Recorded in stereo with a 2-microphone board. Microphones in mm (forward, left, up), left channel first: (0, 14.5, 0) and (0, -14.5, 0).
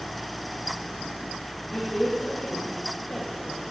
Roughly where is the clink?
I don't hear a clink.